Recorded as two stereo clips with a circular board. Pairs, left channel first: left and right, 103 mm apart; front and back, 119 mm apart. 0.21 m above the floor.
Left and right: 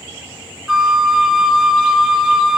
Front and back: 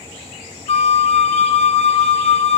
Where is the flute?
5° right, 0.8 m.